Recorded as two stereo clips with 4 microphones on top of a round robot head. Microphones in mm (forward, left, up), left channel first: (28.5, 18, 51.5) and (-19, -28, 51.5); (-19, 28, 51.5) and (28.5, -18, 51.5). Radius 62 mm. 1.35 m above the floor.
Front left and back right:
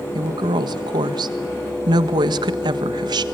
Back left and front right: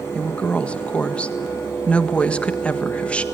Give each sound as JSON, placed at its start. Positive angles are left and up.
{"t": 0.1, "sound": "a woman speaking", "azimuth_deg": -150, "distance_m": 1.6}